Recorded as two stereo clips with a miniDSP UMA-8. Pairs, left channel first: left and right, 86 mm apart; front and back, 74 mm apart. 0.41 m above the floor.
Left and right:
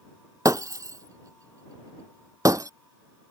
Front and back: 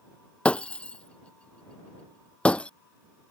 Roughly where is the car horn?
No car horn in this recording.